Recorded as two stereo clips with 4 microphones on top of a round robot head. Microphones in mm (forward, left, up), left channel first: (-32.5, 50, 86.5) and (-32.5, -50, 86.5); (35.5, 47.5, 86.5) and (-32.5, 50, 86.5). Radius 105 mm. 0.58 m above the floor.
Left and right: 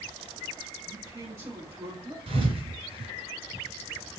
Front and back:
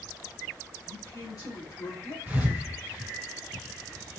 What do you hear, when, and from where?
0.9 s a man speaking: 35° right, 2.5 m
2.3 s a thud: 110° right, 2.5 m